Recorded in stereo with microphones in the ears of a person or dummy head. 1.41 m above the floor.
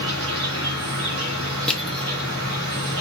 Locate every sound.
0.0 s an insect: 80° right, 2.5 m
1.7 s crushing: 10° left (ahead or behind), 0.8 m